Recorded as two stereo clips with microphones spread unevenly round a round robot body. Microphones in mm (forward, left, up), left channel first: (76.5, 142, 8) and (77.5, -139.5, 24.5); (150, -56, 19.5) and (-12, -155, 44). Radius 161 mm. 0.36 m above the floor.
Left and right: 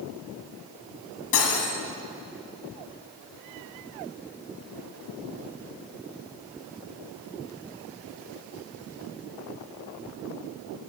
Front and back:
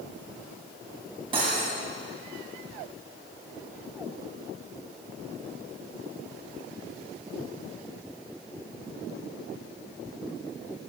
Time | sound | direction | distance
1.3 | cutlery clinking | 135° left | 1.5 m